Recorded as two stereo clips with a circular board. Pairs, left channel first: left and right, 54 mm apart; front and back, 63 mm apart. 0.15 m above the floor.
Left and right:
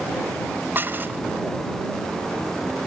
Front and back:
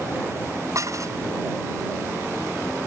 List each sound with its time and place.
0.8 s dishes clattering: 140° right